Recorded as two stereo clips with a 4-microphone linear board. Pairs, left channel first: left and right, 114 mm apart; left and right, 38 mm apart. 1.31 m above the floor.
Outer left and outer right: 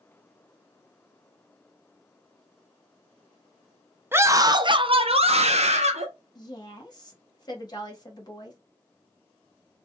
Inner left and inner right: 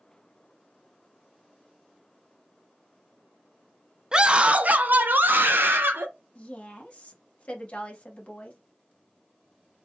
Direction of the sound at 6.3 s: 40° left (ahead or behind).